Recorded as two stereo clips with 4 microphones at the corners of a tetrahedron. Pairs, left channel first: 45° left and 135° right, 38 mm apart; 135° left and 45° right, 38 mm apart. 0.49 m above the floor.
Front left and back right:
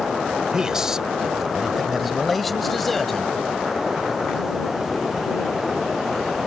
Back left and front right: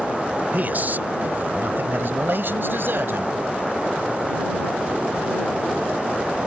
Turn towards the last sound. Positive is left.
turn(degrees=-40)